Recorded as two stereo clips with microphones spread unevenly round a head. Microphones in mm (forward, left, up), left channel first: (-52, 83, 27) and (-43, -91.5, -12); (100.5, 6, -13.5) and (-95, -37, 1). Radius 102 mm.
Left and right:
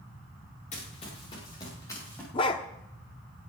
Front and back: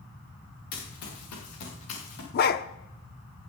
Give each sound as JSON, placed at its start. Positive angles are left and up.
{"t": 0.7, "sound": "running footsteps", "azimuth_deg": 35, "distance_m": 6.0}
{"t": 2.3, "sound": "a dog barking", "azimuth_deg": 45, "distance_m": 0.7}